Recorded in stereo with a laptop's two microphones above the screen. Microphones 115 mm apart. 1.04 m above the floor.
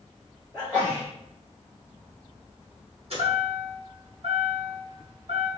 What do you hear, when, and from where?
0.5 s a sneeze: 10° right (ahead or behind), 1.4 m
3.1 s a chime: 60° right (ahead or behind), 1.8 m